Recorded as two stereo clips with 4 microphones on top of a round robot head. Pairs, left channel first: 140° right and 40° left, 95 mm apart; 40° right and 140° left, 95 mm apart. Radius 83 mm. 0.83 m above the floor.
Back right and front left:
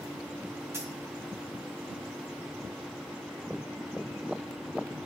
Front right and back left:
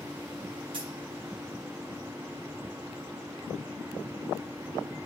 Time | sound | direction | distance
0.7 | a dropped coin | 105° left | 2 m